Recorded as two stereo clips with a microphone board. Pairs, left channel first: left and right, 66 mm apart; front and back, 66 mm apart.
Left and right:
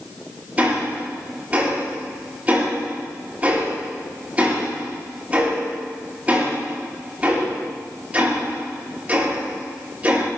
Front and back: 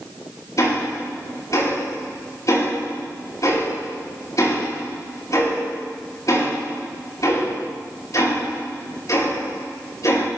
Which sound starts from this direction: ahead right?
Ticking, at 0.6 s.